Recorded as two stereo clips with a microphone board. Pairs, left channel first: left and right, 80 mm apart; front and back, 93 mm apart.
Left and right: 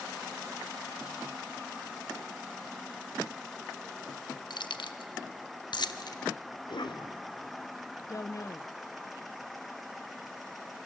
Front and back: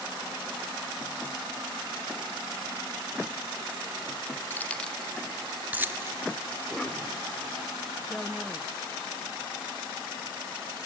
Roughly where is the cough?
Left.